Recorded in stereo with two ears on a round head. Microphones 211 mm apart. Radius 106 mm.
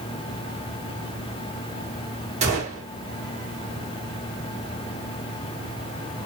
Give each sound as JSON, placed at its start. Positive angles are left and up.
{"t": 2.4, "sound": "a gunshot", "side_deg": -30, "distance_m": 1.5}